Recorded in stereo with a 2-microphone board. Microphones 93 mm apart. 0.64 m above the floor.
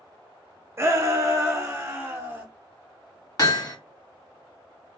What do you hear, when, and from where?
0.8 s a shout: 30° right (ahead or behind), 0.6 m
3.4 s hammering: 40° left (ahead or behind), 0.8 m